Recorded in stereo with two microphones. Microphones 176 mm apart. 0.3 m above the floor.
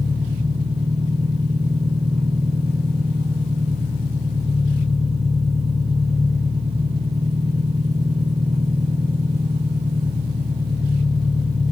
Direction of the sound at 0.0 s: 35° right (ahead or behind).